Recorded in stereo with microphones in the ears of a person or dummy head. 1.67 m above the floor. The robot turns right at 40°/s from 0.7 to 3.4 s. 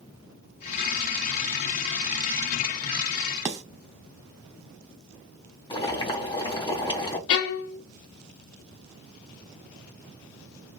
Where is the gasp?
I don't hear a gasp.